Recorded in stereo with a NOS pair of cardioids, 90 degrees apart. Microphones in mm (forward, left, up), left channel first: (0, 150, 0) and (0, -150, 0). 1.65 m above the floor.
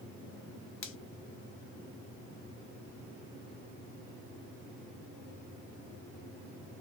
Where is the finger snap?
45° left, 0.8 m.